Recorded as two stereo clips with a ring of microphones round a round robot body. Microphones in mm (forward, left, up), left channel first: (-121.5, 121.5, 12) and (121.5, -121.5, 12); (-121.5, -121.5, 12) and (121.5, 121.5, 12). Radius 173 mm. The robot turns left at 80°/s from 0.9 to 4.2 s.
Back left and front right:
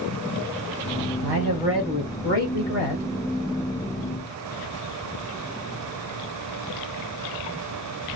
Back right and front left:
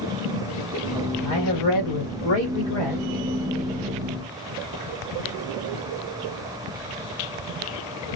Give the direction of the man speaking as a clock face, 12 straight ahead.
3 o'clock.